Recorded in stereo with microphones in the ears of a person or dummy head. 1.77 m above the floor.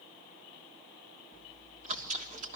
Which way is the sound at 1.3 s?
40° right (ahead or behind).